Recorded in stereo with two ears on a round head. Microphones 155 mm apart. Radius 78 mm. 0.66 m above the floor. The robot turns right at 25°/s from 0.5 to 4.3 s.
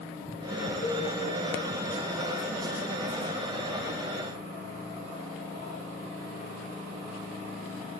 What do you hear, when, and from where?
0.8 s a cowbell: 45° left (ahead or behind), 9 m; by 1.1 s 50° left (ahead or behind), 9 m